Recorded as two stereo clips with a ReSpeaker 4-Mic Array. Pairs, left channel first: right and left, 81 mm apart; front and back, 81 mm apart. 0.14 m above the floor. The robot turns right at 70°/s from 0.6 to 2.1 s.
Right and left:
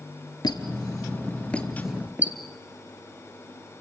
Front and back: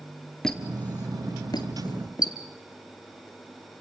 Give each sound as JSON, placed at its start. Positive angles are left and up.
{"t": 0.4, "sound": "a squeak", "azimuth_deg": -85, "distance_m": 2.0}